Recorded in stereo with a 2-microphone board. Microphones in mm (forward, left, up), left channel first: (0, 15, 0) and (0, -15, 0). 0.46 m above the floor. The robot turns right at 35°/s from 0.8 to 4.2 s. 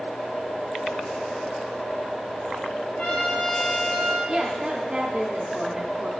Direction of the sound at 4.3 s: 20° right (ahead or behind).